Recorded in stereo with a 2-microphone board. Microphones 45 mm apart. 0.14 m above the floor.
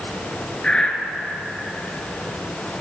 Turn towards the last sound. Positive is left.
turn(degrees=15)  # may be behind; listen again after turning